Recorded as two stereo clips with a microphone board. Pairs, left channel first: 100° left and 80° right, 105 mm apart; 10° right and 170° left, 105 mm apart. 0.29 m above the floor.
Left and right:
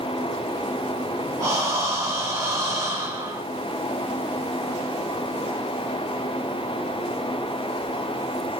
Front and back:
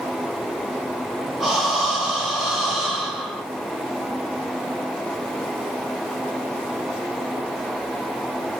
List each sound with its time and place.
1.4 s breathing: 105° right, 1.0 m